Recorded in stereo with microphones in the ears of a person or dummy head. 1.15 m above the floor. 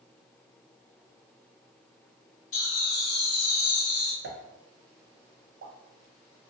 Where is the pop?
50° right (ahead or behind), 0.6 m.